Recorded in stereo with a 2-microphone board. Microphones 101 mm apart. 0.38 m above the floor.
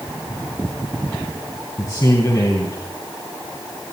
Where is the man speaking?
35° left (ahead or behind), 3 m.